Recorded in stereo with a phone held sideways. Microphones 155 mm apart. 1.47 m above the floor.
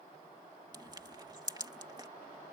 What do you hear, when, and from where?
0.7 s crushing: 25° right (ahead or behind)